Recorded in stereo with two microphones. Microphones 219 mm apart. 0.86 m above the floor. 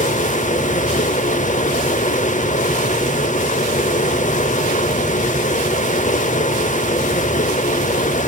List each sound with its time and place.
0.0 s running water: 35° left (ahead or behind), 0.8 m